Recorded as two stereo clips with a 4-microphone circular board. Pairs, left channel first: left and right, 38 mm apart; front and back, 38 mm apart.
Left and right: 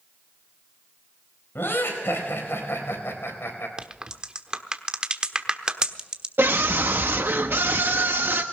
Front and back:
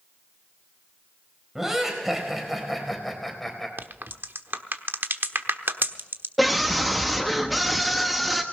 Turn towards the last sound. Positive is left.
turn(degrees=-90)